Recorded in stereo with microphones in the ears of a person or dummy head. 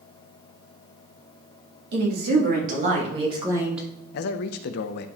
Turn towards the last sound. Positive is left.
turn(degrees=60)  # may be behind; listen again after turning